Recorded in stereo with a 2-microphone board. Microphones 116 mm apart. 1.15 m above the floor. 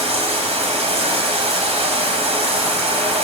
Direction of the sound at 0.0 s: 65° right (ahead or behind).